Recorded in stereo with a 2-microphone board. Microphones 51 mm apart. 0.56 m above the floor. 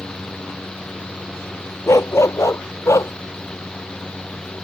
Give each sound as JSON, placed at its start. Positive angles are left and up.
{"t": 1.9, "sound": "a dog barking", "side_deg": 70}